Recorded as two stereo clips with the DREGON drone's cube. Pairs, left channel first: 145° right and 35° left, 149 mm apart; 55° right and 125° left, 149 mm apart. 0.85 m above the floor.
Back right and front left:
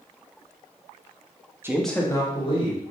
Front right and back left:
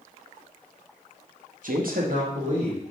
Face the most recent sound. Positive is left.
turn(degrees=165)